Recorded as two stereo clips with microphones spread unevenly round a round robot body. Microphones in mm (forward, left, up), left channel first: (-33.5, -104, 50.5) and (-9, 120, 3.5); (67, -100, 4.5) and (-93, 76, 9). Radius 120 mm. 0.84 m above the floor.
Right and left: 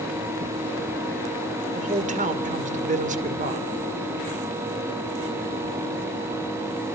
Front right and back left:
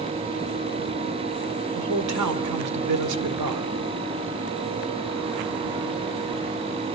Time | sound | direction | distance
1.8 | a man speaking | 140° left | 2.5 m